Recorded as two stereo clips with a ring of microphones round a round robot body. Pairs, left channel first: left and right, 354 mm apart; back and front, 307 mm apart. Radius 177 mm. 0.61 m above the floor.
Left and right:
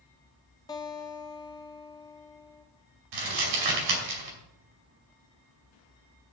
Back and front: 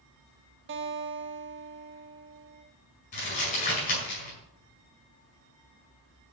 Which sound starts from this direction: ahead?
A guitar, at 0.7 s.